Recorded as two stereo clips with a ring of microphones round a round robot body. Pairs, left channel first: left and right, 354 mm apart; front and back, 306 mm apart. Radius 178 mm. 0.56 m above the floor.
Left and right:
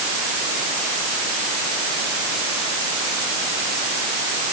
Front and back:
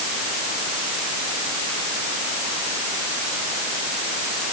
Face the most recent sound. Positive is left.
No sound to turn to.